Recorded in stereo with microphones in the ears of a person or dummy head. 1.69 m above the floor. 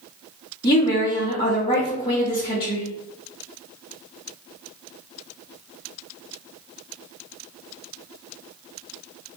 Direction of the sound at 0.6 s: 25° left (ahead or behind).